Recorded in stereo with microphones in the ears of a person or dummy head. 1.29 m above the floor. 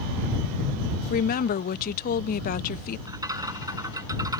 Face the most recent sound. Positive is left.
turn(degrees=-20)  # may be behind; listen again after turning